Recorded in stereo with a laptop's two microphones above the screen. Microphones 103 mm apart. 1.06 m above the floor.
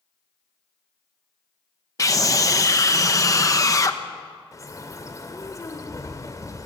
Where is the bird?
35° left (ahead or behind), 2.5 m.